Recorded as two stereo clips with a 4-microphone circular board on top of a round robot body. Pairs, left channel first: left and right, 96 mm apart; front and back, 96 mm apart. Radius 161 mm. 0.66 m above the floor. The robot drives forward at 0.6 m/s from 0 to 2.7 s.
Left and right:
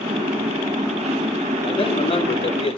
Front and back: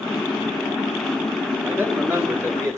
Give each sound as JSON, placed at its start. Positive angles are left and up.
{"t": 1.6, "sound": "a man speaking", "azimuth_deg": 105, "distance_m": 3.0}